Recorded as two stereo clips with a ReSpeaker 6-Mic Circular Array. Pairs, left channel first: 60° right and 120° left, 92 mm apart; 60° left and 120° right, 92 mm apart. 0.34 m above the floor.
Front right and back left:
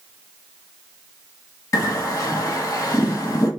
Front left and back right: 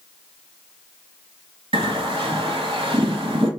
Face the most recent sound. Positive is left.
turn(degrees=-110)